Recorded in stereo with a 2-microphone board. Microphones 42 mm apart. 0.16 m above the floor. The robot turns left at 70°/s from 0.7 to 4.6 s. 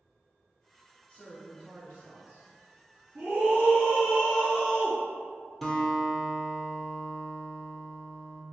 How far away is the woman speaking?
About 1.5 m.